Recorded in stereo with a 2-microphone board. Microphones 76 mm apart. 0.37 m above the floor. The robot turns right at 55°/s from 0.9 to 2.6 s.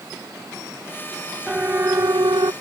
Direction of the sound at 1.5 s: 10° right (ahead or behind).